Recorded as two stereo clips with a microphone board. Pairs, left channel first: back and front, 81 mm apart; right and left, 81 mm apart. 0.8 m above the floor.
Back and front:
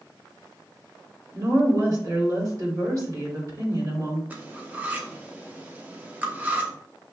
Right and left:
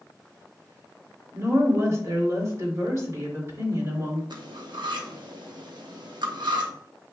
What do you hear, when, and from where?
1.3 s a woman speaking: 40° left, 3 m
4.3 s cutlery clinking: 70° left, 0.8 m